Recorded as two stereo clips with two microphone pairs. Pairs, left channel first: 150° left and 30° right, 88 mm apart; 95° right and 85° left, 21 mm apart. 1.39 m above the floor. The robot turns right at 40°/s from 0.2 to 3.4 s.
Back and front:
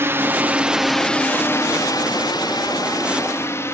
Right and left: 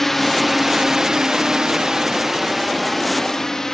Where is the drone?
35° right; by 3.8 s 150° right.